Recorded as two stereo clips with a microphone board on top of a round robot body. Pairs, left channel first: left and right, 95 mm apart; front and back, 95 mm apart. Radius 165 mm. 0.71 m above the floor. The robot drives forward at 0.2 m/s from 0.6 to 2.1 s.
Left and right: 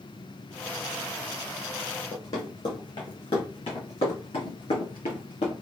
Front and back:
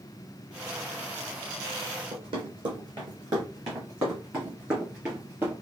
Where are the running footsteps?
155° left, 1.5 m; by 5.5 s 115° left, 3.5 m.